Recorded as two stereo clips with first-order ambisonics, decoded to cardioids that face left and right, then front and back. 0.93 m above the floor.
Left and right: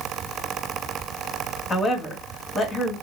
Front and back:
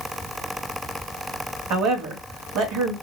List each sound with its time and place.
1.7 s a woman speaking: 170° left, 1.2 m